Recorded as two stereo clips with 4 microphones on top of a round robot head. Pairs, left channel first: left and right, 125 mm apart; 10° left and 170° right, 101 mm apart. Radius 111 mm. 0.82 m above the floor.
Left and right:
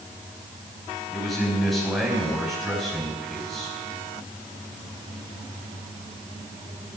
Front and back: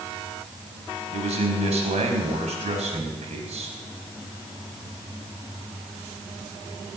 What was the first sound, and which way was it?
A man speaking, straight behind.